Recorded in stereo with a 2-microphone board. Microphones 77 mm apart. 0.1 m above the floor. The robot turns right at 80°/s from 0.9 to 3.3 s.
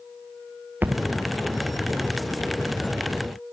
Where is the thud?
25° right (ahead or behind), 1.1 m; by 1.0 s 35° right (ahead or behind), 1.1 m.